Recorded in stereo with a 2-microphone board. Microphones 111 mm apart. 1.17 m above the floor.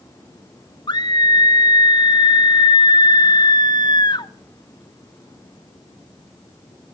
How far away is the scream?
About 1.2 m.